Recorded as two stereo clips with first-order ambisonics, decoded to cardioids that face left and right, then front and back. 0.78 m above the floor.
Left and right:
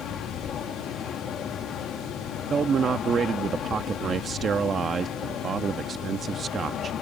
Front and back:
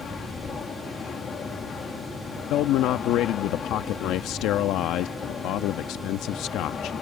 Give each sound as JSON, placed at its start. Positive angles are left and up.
{"t": 0.0, "sound": "an aircraft", "azimuth_deg": 50}
{"t": 2.5, "sound": "a man speaking", "azimuth_deg": -30}